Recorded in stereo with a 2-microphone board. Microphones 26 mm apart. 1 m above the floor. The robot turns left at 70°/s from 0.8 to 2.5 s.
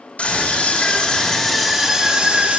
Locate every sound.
0.2 s a scream: 65° left, 3.5 m; by 2.6 s 50° right, 3.5 m